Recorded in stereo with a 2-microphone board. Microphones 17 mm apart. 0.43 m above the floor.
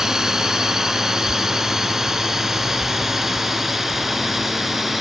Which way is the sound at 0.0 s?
35° right (ahead or behind).